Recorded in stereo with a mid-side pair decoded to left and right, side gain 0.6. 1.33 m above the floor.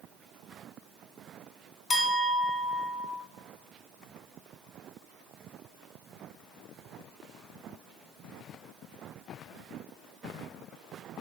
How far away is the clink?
About 0.8 m.